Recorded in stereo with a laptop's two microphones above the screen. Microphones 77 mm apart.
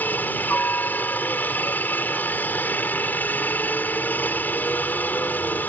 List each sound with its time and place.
0.0 s a helicopter: 25° left (ahead or behind)